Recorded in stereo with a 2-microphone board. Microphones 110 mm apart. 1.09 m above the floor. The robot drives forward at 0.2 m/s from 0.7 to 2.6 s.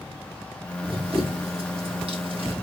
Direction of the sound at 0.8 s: 55° right (ahead or behind).